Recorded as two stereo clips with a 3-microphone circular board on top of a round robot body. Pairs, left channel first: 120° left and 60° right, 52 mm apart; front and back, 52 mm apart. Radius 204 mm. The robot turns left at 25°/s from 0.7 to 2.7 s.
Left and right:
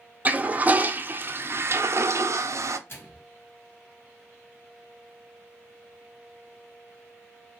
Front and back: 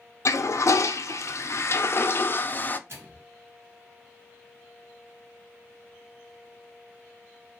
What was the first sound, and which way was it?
A toilet flushing, 5° right.